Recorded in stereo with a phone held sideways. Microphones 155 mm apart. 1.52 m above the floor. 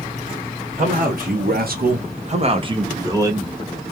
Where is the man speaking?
55° right (ahead or behind), 0.9 m; by 3.5 s 15° right (ahead or behind), 1.3 m.